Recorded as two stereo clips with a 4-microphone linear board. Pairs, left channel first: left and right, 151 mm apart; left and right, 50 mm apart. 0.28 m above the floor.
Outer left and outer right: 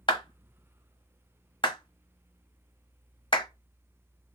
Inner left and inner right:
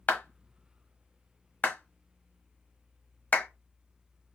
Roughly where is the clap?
Left.